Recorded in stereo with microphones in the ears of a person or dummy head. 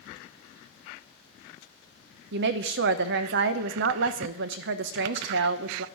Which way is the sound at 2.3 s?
60° right (ahead or behind).